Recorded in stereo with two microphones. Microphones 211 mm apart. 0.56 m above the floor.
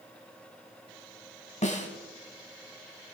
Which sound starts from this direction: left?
A snare drum, at 1.6 s.